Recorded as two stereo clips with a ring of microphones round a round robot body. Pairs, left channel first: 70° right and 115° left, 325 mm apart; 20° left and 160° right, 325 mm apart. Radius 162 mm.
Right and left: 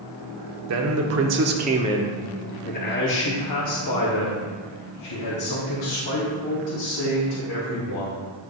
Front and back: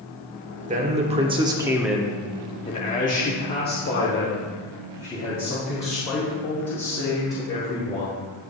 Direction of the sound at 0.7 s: 140° left.